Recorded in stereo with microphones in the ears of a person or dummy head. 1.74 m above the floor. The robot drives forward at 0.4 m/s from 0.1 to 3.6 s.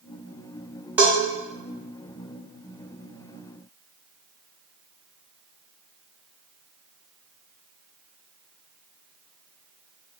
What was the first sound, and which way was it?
A bell, 10° right (ahead or behind).